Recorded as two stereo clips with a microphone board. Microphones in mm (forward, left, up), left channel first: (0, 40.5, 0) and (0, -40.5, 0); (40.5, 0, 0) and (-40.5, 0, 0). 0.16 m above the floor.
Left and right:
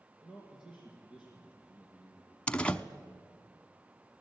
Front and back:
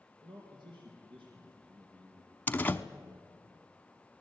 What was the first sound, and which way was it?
A man speaking, 170° right.